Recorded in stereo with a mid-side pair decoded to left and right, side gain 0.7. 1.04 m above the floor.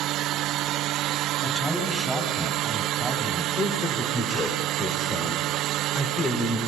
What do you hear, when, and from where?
1.4 s a man speaking: 5° left, 8.5 m
3.5 s a man speaking: 30° left, 4 m